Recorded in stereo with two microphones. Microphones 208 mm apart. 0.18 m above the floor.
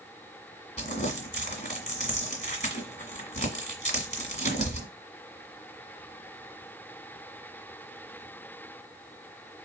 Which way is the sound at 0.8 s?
30° left (ahead or behind).